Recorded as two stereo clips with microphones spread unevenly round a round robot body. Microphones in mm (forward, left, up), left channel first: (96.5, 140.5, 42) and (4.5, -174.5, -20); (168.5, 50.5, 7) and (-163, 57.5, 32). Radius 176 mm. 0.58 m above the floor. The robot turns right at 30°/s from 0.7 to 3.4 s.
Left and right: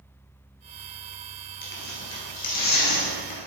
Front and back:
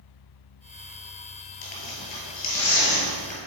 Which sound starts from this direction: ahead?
Tearing paper, at 1.6 s.